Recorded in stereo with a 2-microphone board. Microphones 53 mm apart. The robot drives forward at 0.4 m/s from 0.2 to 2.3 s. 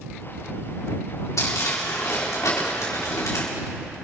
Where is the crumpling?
80° left, 4 m; by 3.5 s 75° left (ahead or behind), 4 m.